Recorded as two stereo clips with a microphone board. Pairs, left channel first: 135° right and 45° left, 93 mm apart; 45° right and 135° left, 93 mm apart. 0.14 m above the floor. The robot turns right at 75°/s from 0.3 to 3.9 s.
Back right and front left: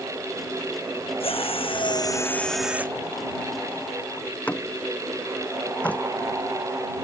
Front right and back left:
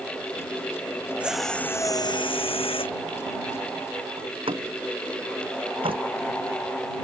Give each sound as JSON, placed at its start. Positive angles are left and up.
{"t": 1.2, "sound": "a drill", "azimuth_deg": -150}
{"t": 4.2, "sound": "a door slam", "azimuth_deg": 150}